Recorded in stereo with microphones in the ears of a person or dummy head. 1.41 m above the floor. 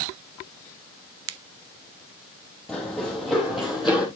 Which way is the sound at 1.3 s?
85° right.